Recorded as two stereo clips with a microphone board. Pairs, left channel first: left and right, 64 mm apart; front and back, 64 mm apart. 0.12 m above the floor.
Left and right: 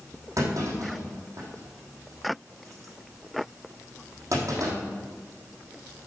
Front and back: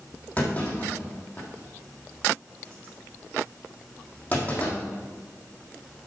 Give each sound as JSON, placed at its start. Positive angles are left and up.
{"t": 0.4, "sound": "a clunk", "azimuth_deg": -60, "distance_m": 4.0}